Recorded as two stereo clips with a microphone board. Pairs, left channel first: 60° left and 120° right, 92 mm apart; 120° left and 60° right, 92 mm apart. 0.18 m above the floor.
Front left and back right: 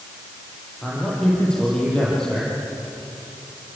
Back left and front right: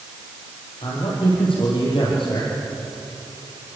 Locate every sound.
0.8 s a man speaking: 140° left, 6.5 m